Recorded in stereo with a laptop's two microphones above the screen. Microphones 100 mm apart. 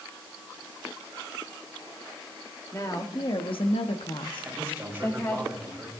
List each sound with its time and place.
2.7 s a woman speaking: 35° left (ahead or behind), 1.6 m
4.4 s a man speaking: 15° right (ahead or behind), 6 m